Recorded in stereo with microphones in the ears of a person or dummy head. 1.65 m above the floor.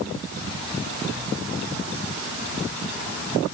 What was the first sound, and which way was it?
Only background noise.